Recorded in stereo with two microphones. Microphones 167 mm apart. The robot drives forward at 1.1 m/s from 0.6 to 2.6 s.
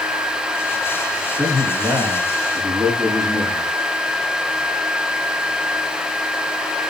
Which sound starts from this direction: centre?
A man speaking, at 1.4 s.